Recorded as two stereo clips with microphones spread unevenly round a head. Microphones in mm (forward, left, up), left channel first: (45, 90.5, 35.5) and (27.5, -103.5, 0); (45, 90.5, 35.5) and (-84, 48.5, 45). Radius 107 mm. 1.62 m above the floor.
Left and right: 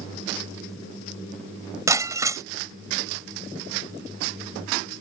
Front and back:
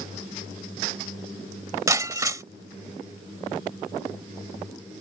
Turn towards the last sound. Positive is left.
turn(degrees=-175)